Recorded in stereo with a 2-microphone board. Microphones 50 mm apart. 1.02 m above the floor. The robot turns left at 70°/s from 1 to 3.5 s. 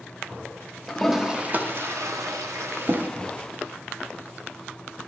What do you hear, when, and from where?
0.9 s a toilet flushing: 5° left (ahead or behind), 0.6 m; by 3.1 s 40° right (ahead or behind), 0.6 m